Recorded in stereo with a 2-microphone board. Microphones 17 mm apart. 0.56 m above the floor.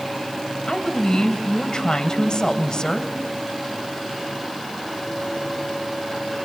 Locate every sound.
0.7 s a woman speaking: 50° left (ahead or behind), 3 m